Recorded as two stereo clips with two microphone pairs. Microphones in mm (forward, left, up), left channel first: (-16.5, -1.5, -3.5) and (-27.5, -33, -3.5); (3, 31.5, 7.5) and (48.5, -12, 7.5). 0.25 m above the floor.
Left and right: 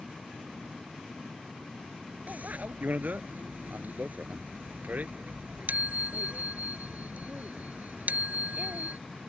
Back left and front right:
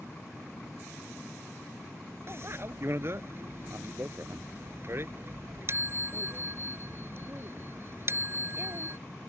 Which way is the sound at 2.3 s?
85° right.